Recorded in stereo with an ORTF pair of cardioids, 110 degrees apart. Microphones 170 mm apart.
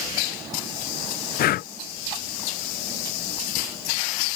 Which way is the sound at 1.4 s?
60° left.